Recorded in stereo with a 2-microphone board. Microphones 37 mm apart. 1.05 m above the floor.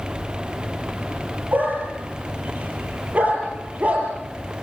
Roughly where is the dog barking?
Right.